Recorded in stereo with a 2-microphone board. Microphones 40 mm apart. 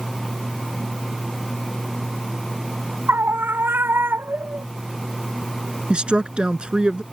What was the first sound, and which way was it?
A scream, 65° right (ahead or behind).